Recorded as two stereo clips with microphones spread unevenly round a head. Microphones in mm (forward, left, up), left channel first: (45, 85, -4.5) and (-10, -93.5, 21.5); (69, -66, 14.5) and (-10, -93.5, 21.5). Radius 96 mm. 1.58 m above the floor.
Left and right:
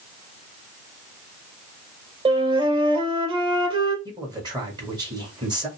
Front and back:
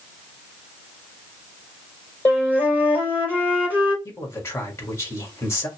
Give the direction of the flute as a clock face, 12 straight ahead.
2 o'clock.